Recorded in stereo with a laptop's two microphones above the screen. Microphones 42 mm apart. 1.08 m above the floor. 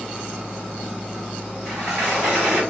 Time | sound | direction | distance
1.6 | a sliding door | 20° right (ahead or behind) | 1.9 m